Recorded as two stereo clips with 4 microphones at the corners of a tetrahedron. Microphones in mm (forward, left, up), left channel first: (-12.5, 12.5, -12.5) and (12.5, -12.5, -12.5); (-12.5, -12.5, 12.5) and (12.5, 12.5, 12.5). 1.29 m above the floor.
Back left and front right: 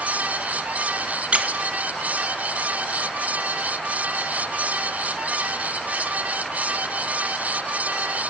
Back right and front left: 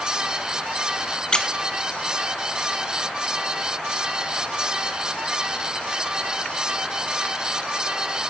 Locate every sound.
1.3 s a squeak: 80° right, 0.6 m